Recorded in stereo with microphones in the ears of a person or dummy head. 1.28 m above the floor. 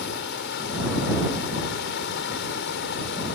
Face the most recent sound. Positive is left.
turn(degrees=75)  # may be behind; listen again after turning